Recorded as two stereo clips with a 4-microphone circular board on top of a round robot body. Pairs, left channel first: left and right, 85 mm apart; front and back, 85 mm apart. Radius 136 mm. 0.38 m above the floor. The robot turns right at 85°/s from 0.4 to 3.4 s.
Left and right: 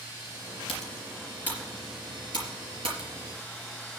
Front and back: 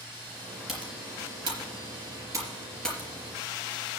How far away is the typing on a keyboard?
About 4 m.